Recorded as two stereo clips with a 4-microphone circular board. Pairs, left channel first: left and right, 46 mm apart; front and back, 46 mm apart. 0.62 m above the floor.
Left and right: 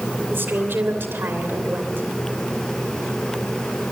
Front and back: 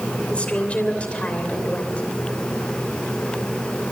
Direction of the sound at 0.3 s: 65° right.